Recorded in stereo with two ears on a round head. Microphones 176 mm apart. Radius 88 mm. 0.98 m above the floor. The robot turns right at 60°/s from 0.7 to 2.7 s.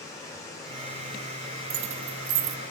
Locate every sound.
0.0 s running water: 15° left, 2.5 m; by 2.7 s 135° left, 2.5 m
1.7 s keys jangling: 55° right (ahead or behind), 0.7 m; by 2.6 s 65° right (ahead or behind), 0.7 m